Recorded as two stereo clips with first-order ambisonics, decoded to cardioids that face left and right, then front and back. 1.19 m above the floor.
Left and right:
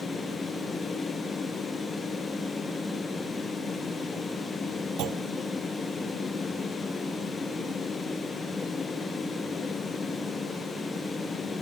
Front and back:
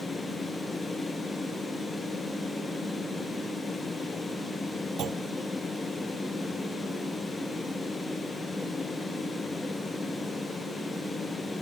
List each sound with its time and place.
5.0 s a clunk: 125° right